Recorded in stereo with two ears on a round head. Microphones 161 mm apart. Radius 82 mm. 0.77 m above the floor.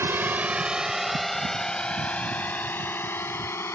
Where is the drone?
15° right (ahead or behind); by 3.8 s 15° left (ahead or behind).